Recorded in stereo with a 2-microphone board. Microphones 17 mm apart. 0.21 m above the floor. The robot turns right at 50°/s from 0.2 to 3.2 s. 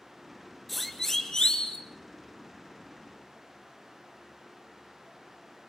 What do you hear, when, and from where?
0.7 s a siren: centre (ahead or behind), 3.5 m; by 1.8 s 70° left (ahead or behind), 3.5 m